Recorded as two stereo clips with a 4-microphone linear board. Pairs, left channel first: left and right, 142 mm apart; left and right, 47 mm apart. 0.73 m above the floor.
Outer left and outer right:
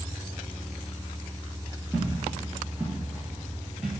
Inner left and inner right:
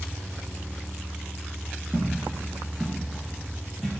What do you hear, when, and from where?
1.9 s footsteps: 10° right (ahead or behind), 1.9 m; by 4.0 s 5° right (ahead or behind), 1.0 m